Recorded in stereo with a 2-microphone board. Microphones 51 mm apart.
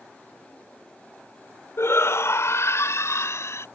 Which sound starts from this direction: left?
A shout, at 1.8 s.